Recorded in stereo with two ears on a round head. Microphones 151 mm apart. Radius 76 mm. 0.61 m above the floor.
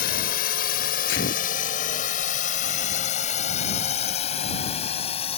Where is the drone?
60° left (ahead or behind); by 5.4 s 35° left (ahead or behind).